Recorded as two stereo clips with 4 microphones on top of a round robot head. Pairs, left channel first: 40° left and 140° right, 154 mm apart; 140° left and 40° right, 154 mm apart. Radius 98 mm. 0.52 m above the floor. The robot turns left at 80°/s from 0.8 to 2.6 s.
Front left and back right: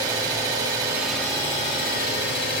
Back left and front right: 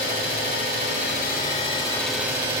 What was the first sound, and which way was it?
An engine running, 155° left.